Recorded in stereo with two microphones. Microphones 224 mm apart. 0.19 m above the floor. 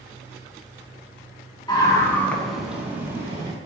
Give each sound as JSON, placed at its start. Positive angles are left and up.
{"t": 1.7, "sound": "a scream", "side_deg": 20, "distance_m": 1.9}